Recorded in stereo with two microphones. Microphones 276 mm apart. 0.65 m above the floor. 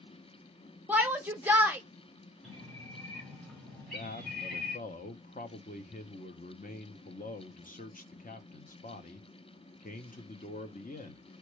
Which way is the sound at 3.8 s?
30° left (ahead or behind).